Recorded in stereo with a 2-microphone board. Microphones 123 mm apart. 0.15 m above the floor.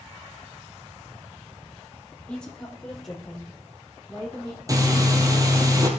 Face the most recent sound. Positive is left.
turn(degrees=-30)  # may be behind; listen again after turning